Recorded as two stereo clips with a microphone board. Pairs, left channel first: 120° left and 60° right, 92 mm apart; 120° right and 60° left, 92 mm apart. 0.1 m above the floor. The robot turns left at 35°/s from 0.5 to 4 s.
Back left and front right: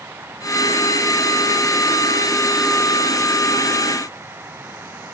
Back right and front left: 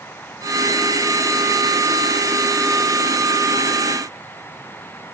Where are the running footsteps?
I don't hear running footsteps.